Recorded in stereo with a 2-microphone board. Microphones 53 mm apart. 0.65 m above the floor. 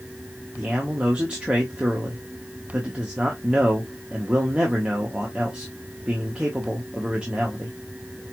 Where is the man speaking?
20° right (ahead or behind), 1.1 m.